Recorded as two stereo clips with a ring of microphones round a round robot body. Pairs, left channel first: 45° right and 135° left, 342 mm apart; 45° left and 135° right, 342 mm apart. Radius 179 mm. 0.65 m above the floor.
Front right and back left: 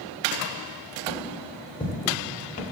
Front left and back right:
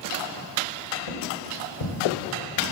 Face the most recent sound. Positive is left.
turn(degrees=30)